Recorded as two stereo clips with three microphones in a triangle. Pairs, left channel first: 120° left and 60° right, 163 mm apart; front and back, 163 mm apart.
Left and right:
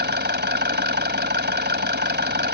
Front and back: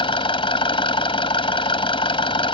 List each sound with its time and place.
0.0 s an engine running: 60° right